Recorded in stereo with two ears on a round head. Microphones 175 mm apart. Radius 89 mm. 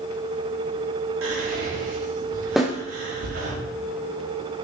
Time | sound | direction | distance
1.2 | whispering | 80° right | 3.5 m
2.6 | a snare drum | centre (ahead or behind) | 1.5 m